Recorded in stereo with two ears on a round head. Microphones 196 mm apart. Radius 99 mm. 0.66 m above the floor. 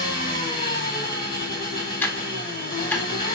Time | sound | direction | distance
0.0 | an engine running | 25° left (ahead or behind) | 1.7 m
2.0 | ticking | 10° left (ahead or behind) | 0.7 m